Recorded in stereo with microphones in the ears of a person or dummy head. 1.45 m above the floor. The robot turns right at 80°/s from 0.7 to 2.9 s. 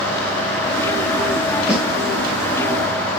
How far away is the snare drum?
About 3 m.